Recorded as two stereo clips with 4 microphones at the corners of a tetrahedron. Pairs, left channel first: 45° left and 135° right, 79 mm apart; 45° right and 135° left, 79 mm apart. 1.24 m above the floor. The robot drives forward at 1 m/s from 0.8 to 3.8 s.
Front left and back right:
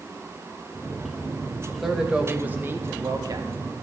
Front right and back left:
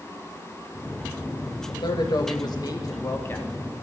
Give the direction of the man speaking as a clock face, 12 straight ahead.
2 o'clock.